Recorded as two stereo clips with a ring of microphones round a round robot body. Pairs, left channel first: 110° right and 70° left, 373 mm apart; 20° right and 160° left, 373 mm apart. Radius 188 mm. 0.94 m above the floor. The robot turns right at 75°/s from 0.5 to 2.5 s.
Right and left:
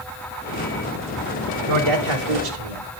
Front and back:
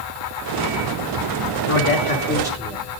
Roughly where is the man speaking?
Ahead.